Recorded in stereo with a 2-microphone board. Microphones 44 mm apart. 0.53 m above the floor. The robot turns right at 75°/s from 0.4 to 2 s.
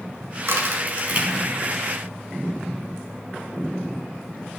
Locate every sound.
0.5 s a crack: 85° right, 1.7 m; by 1.5 s 10° right (ahead or behind), 1.7 m